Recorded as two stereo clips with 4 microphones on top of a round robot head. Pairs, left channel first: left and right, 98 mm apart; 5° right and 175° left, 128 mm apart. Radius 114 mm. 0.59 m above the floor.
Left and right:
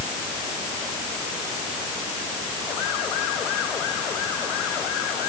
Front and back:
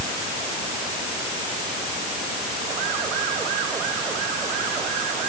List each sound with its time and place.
Only background noise.